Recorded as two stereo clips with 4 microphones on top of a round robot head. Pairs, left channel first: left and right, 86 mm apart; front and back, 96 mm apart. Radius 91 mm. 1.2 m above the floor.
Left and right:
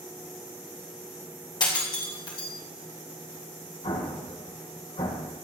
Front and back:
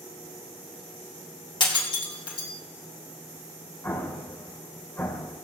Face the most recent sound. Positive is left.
turn(degrees=65)